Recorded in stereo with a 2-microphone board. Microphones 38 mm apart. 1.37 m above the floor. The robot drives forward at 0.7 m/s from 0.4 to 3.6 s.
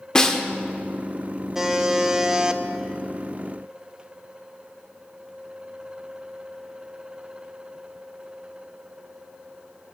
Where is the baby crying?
I don't hear a baby crying.